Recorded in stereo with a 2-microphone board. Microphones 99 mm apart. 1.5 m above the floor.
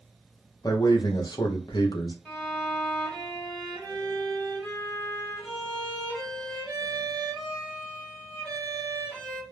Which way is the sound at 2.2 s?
15° left (ahead or behind).